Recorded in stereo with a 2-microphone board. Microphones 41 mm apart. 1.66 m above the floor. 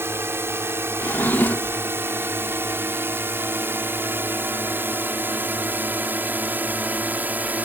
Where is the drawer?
55° left (ahead or behind).